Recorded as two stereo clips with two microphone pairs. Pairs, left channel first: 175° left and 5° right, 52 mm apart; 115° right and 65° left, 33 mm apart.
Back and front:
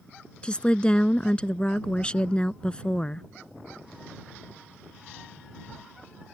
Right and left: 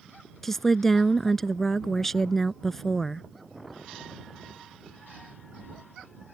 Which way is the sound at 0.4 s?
Straight behind.